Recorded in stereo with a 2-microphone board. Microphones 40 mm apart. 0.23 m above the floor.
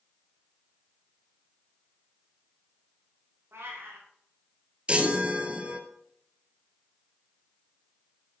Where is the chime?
30° right (ahead or behind), 1.5 m.